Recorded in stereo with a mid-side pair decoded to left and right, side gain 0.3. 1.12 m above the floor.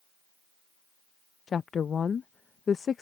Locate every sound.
1.5 s a woman speaking: 65° left